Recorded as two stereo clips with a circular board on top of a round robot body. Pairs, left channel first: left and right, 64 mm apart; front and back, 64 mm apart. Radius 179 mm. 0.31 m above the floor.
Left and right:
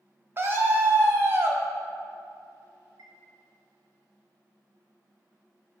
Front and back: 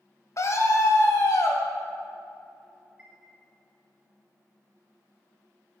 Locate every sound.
0.4 s a scream: 35° right, 2.5 m
3.0 s a chime: 105° right, 1.7 m